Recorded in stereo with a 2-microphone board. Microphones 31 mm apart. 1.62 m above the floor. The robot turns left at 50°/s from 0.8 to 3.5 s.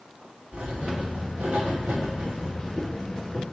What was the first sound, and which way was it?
Writing, 50° right.